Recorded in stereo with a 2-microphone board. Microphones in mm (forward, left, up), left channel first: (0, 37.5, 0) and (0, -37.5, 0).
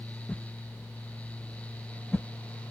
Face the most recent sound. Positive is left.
turn(degrees=20)  # may be behind; listen again after turning